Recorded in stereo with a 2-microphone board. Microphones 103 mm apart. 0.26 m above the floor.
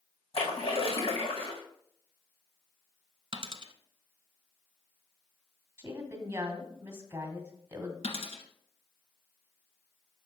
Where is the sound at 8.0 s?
75° left (ahead or behind), 1.7 m.